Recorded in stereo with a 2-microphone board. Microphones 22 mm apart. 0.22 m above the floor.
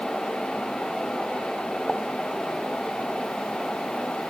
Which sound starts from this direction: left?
A pop, at 1.9 s.